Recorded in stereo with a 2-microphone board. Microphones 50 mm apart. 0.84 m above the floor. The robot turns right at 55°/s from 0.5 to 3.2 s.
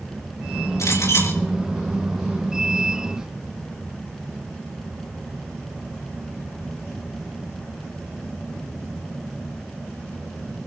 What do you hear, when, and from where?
0.8 s a clink: 100° left, 9.5 m; by 1.4 s 130° left, 9.5 m